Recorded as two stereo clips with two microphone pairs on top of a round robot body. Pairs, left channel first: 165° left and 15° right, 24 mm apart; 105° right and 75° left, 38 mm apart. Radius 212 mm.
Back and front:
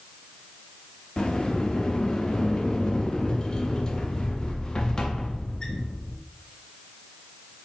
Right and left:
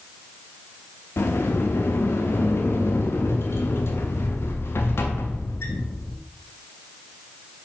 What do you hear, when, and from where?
1.2 s a sliding door: 130° right, 0.5 m